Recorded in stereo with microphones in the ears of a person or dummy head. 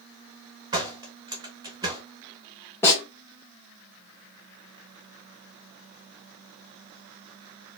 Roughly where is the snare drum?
Centre.